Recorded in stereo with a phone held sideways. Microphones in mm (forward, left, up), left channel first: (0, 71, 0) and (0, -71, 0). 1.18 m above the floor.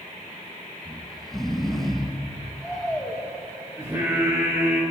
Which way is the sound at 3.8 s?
20° right (ahead or behind).